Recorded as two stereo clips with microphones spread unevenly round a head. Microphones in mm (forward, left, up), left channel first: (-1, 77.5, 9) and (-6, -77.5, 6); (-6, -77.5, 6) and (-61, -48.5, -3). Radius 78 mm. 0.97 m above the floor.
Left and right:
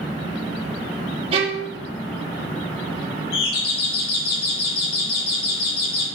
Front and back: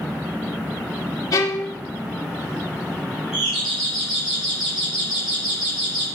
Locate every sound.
1.3 s a violin: 40° right, 2.5 m
3.3 s a doorbell: 70° left, 3.5 m